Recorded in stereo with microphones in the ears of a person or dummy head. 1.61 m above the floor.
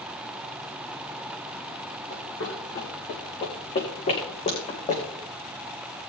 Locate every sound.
2.1 s running footsteps: 55° left (ahead or behind), 4.5 m; by 5.0 s 40° left (ahead or behind), 5 m